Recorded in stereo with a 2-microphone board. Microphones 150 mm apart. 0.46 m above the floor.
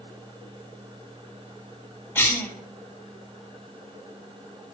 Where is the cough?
15° left (ahead or behind), 1.9 m.